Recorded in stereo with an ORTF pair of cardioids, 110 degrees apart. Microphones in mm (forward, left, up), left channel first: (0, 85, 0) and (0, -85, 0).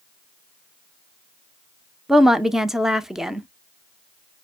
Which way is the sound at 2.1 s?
5° right.